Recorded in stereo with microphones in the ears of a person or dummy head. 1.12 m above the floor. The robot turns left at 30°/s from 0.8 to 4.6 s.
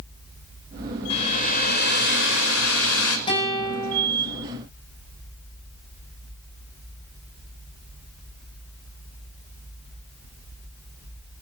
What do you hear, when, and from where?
1.1 s a hair dryer: 145° left, 4.5 m; by 3.2 s 85° left, 4.5 m
3.3 s a guitar: 30° left (ahead or behind), 8 m; by 4.1 s 5° left (ahead or behind), 8 m